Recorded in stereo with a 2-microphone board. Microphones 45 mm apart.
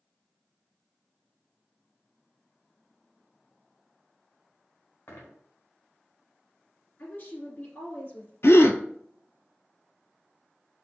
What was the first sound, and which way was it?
A dropped coin, 85° left.